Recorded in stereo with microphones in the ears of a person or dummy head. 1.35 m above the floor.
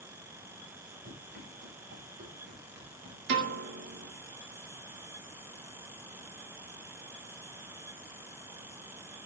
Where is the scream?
I don't hear a scream.